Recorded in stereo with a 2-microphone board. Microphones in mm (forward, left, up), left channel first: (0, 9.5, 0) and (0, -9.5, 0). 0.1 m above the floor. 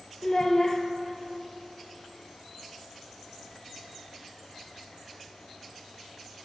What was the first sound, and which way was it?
A child speaking, 25° left (ahead or behind).